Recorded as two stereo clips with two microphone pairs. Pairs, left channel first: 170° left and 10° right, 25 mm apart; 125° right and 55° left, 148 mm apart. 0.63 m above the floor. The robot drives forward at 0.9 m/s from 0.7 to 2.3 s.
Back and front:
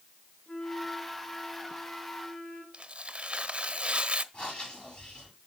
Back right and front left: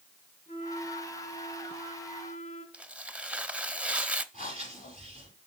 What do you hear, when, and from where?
0.5 s a flute: 140° right, 2.5 m; by 2.6 s 155° right, 3.5 m
2.7 s tearing paper: 20° right, 0.6 m
4.3 s breathing: 150° right, 5.5 m